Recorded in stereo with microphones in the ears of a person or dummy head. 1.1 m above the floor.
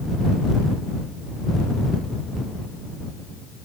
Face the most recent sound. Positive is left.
No sound to turn to.